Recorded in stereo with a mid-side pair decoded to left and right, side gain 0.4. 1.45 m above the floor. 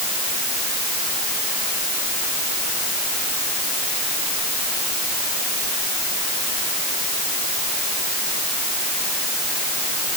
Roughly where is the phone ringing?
I don't hear a phone ringing.